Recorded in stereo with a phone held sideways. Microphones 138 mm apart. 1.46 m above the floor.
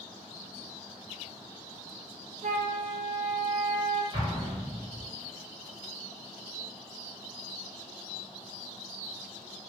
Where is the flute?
55° right (ahead or behind), 0.8 m.